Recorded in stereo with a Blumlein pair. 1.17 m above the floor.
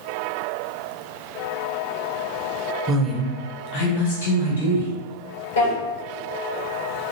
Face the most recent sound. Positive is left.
turn(degrees=65)